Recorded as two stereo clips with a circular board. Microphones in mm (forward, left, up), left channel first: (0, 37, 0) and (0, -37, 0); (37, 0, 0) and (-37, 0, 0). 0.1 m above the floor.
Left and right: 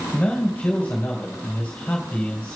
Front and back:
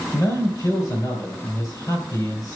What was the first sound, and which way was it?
A man speaking, 25° left.